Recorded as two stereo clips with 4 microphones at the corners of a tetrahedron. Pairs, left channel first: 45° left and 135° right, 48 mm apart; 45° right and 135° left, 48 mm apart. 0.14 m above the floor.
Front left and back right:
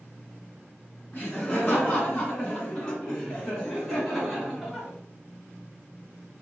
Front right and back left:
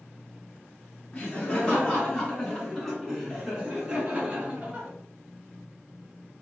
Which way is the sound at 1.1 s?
5° right.